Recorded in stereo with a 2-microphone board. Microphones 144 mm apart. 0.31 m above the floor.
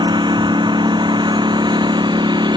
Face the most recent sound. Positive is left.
turn(degrees=-30)  # may be behind; listen again after turning